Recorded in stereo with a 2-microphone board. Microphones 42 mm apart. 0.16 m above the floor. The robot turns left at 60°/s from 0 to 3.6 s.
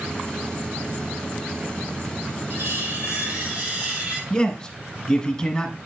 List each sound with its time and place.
2.5 s cutlery clinking: 70° right, 3 m; by 4.2 s 135° right, 3 m
4.3 s a man speaking: 15° left (ahead or behind), 1.4 m